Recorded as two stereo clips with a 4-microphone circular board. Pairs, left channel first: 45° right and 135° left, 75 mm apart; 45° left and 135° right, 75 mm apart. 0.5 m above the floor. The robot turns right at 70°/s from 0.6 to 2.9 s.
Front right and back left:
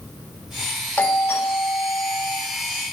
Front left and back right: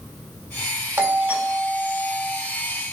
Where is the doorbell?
100° right, 1.7 m; by 2.4 s straight ahead, 1.7 m.